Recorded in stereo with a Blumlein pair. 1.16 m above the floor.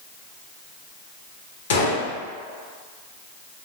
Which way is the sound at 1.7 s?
60° left.